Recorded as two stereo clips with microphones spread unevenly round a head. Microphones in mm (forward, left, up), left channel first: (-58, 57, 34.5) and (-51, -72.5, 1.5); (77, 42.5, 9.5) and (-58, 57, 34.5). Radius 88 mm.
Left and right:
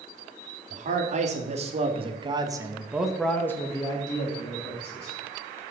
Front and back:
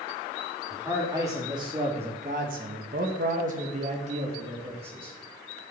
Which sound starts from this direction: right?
A man speaking, at 0.7 s.